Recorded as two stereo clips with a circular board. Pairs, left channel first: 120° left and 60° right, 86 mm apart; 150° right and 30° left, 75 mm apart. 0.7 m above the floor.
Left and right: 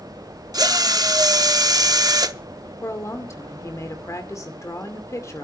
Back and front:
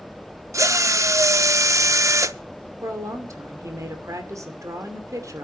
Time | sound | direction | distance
0.5 | a drill | 15° right | 0.6 m
2.8 | a woman speaking | 70° left | 2.5 m